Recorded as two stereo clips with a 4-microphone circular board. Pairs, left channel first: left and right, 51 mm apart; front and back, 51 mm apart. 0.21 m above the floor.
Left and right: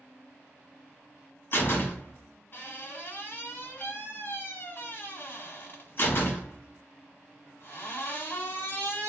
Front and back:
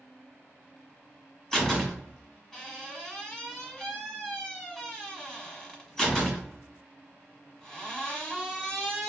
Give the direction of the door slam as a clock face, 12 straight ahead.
9 o'clock.